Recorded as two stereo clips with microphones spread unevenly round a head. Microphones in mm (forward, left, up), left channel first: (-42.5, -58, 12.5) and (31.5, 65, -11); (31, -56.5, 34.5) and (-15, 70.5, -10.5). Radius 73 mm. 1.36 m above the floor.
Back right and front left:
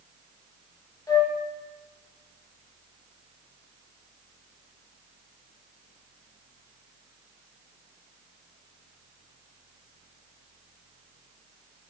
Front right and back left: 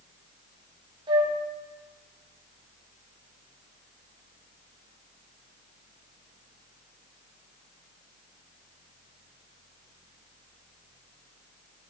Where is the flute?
170° left, 1.5 m.